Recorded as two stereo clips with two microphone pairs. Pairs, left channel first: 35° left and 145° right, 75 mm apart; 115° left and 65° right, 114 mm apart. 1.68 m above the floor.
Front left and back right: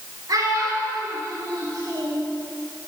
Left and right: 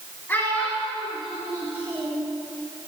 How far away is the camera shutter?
No camera shutter in this recording.